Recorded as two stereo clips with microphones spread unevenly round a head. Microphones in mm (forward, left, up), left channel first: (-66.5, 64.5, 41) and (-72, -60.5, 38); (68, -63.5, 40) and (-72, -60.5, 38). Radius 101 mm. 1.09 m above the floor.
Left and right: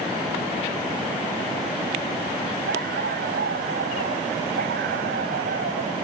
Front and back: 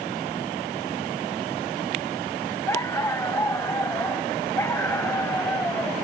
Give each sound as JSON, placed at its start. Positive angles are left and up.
{"t": 2.7, "sound": "a dog barking", "azimuth_deg": -70}